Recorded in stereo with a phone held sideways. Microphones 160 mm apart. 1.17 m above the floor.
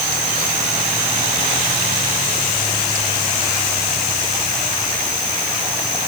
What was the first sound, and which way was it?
Only background noise.